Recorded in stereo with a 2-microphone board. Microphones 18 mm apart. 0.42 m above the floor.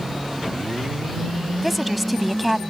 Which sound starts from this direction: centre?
A woman speaking, at 1.6 s.